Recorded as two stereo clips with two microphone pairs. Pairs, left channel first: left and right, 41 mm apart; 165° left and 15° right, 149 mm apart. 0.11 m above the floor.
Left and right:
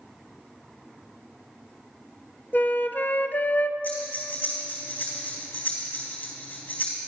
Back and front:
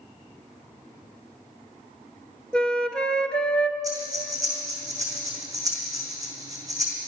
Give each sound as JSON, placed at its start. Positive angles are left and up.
{"t": 2.5, "sound": "a flute", "azimuth_deg": 80, "distance_m": 0.7}
{"t": 3.8, "sound": "breathing", "azimuth_deg": 50, "distance_m": 3.0}